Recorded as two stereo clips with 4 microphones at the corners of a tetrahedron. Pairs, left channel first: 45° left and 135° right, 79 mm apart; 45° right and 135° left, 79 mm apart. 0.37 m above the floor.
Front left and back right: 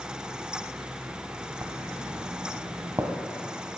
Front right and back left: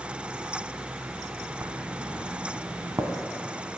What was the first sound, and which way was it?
Writing, 175° right.